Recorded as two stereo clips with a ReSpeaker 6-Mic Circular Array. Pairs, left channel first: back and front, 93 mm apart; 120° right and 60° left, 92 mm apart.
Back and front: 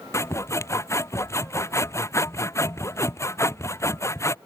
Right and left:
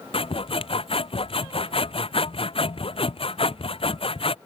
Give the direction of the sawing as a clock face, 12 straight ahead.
4 o'clock.